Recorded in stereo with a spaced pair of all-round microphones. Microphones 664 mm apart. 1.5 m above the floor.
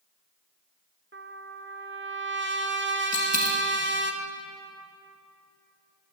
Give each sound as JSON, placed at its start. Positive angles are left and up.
{"t": 1.1, "sound": "a trumpet", "side_deg": -15, "distance_m": 0.7}
{"t": 3.1, "sound": "a dropped coin", "side_deg": 20, "distance_m": 2.5}